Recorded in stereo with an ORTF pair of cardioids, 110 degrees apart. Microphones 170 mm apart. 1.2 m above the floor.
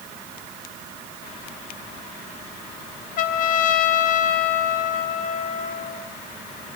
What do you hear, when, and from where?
3.2 s a trumpet: 55° left, 0.7 m